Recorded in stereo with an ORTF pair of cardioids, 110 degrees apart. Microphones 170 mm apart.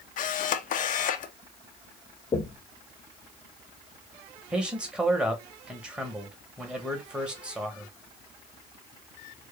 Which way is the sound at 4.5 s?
5° right.